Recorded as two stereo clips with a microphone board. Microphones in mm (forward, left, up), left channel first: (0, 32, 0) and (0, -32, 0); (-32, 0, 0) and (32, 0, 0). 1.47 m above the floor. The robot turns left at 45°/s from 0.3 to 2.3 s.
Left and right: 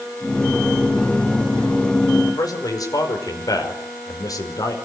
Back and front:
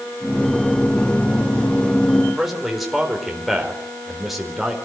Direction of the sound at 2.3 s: 90° left.